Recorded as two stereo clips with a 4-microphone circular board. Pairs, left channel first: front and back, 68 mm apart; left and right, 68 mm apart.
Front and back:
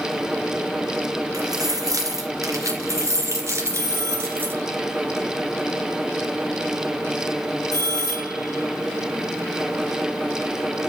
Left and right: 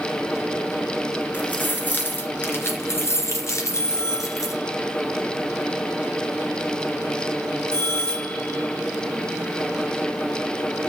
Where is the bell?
140° left, 4.5 m.